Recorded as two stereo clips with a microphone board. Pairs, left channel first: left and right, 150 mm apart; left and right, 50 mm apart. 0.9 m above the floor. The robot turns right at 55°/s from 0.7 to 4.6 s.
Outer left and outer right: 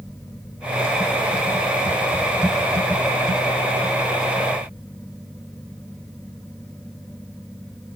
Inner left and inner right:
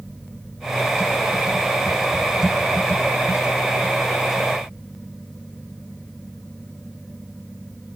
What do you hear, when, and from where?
Only background noise.